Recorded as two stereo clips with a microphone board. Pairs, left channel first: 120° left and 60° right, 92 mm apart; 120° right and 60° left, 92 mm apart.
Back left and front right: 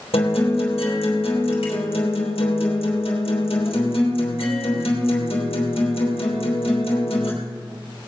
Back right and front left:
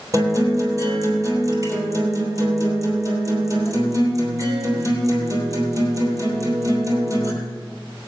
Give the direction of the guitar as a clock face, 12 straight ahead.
8 o'clock.